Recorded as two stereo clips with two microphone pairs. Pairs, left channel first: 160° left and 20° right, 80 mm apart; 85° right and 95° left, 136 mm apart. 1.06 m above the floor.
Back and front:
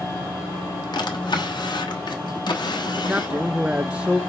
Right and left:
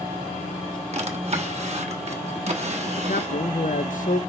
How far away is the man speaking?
About 0.7 m.